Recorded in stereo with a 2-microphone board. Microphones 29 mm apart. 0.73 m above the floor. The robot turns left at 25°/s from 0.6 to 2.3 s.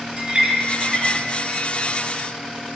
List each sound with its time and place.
0.2 s a clink: 40° right (ahead or behind), 1.3 m; by 1.1 s 30° right (ahead or behind), 1.3 m